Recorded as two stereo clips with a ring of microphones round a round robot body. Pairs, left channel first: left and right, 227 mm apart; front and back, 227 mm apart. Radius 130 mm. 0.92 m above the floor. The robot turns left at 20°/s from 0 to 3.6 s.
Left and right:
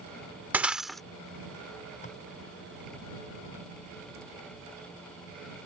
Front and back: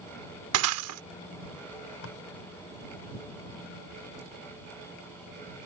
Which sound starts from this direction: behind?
Breaking glass, at 0.5 s.